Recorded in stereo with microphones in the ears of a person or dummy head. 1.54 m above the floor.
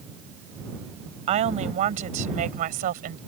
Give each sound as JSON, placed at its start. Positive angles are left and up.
{"t": 1.3, "sound": "a woman speaking", "side_deg": -35}